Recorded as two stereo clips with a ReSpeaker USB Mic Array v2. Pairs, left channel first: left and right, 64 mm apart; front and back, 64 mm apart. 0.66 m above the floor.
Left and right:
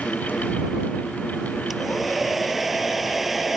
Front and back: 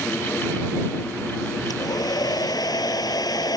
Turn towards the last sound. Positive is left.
turn(degrees=-5)